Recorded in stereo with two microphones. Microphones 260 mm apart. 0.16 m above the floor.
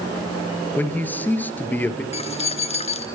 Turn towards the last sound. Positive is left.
turn(degrees=25)  # may be behind; listen again after turning